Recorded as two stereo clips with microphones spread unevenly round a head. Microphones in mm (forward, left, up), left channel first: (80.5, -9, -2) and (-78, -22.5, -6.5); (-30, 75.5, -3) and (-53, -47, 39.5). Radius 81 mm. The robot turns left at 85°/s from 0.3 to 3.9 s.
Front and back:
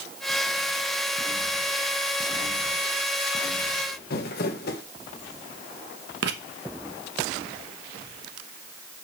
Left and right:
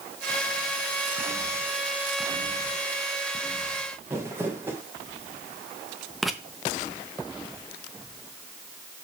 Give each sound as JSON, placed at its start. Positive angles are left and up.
{"t": 4.1, "sound": "crumpling", "azimuth_deg": -25, "distance_m": 1.5}
{"t": 6.2, "sound": "writing", "azimuth_deg": 180, "distance_m": 1.0}